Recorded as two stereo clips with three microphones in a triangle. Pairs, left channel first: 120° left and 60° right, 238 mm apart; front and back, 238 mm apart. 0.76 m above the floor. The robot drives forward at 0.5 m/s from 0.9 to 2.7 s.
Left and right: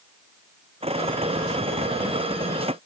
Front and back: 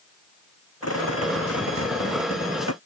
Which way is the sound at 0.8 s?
5° left.